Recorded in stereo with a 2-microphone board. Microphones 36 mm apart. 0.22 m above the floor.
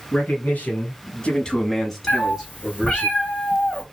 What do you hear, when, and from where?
0.1 s a man speaking: 55° left (ahead or behind), 2 m; by 3.1 s 15° right (ahead or behind), 3 m
2.1 s a cat meowing: 35° left (ahead or behind), 1.4 m